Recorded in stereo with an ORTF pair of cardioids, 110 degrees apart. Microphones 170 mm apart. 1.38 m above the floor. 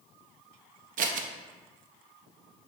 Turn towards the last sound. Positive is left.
turn(degrees=-55)